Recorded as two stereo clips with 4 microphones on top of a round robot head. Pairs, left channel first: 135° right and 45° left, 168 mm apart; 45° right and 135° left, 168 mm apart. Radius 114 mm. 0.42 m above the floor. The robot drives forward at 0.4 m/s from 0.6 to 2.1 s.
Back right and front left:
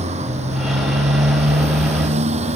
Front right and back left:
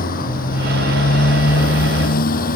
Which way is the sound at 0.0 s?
5° right.